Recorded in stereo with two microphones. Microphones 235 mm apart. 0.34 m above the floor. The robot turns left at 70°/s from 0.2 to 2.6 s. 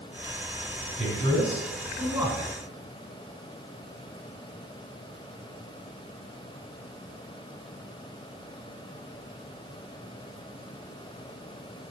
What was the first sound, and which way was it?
A man speaking, 75° right.